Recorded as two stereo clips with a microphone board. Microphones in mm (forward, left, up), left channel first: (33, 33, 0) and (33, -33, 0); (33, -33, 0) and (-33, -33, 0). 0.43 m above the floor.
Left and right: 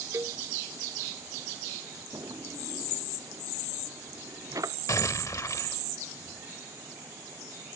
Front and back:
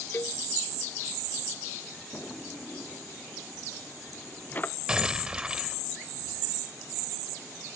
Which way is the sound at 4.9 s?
105° left.